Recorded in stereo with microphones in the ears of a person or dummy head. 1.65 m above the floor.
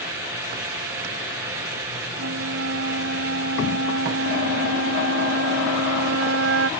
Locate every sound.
2.2 s a flute: 80° right